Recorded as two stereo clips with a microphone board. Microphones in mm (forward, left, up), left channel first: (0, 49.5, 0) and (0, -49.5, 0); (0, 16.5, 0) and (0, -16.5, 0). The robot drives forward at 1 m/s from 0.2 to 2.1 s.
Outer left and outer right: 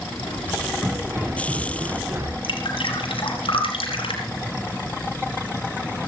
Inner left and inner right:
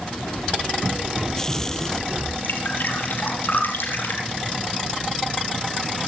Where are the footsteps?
30° right (ahead or behind), 5 m.